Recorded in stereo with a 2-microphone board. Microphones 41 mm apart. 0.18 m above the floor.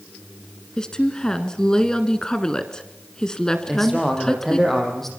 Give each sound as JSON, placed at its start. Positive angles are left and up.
{"t": 0.8, "sound": "a woman speaking", "side_deg": 15, "distance_m": 1.8}
{"t": 3.7, "sound": "a man speaking", "side_deg": 5, "distance_m": 6.5}